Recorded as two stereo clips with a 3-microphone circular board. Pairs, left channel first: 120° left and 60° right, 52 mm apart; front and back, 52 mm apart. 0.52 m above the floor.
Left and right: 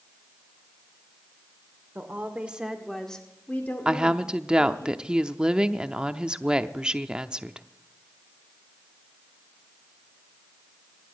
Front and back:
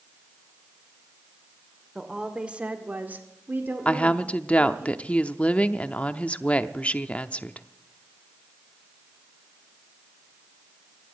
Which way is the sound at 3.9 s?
15° right.